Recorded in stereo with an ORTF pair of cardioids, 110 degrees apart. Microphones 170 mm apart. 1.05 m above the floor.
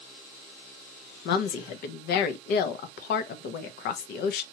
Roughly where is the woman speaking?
Left.